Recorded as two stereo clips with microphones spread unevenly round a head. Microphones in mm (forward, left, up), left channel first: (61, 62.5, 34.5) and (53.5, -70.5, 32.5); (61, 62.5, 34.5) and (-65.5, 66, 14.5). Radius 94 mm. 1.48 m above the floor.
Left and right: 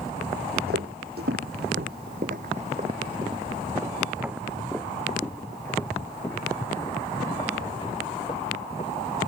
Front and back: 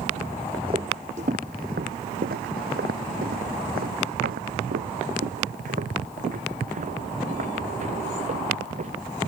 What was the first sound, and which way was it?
Footsteps, 115° right.